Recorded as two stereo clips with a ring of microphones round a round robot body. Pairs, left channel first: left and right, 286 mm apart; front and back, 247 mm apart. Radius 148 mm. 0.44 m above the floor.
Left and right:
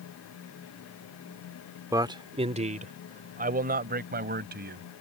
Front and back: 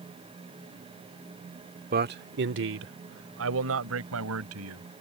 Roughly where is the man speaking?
Behind.